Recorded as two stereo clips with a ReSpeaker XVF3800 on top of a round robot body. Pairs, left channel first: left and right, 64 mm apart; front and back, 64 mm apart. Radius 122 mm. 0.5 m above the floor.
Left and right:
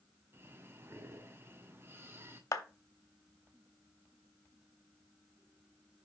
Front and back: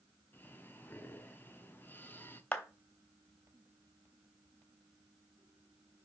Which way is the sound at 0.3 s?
50° right.